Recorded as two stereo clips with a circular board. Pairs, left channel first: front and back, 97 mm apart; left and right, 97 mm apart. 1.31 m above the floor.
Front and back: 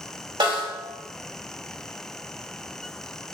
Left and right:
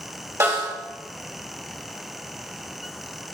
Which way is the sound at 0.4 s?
150° right.